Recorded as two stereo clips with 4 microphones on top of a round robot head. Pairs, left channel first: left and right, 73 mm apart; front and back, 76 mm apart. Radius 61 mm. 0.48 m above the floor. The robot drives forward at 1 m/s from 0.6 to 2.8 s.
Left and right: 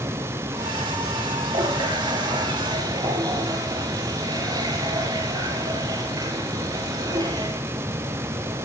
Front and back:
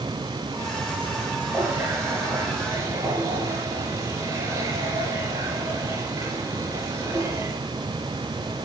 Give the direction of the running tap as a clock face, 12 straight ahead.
4 o'clock.